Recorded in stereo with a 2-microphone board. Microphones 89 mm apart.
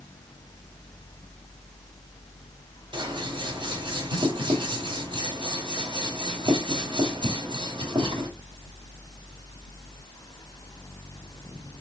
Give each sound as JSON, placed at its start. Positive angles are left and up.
{"t": 2.9, "sound": "scissors", "side_deg": -60, "distance_m": 1.0}